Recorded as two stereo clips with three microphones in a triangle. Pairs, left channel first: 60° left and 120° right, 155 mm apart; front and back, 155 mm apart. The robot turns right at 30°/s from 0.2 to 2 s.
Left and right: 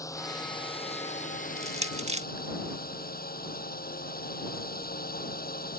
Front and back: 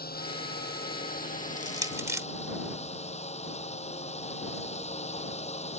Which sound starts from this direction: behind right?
Crushing, at 1.6 s.